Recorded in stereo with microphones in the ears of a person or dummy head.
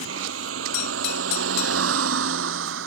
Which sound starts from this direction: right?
A vehicle, at 0.0 s.